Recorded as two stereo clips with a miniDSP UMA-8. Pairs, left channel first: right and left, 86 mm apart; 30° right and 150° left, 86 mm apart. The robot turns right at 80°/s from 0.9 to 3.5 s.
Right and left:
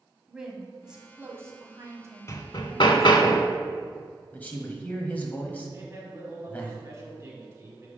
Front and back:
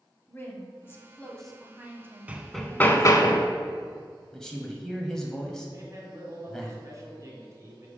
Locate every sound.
0.3 s a woman speaking: 15° left, 1.2 m; by 3.3 s 155° right, 1.2 m
2.3 s hammering: 140° right, 0.5 m; by 3.5 s 40° right, 0.5 m
4.3 s a man speaking: 100° right, 1.0 m
5.7 s a man speaking: 130° left, 1.8 m